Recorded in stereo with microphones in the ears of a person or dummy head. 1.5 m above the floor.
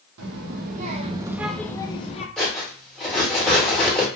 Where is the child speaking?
65° right (ahead or behind), 0.9 m; by 2.3 s 40° left (ahead or behind), 0.8 m.